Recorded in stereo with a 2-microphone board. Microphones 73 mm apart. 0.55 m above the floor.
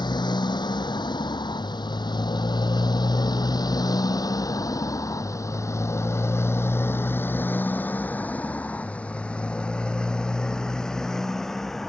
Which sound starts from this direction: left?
A motorcycle, at 0.0 s.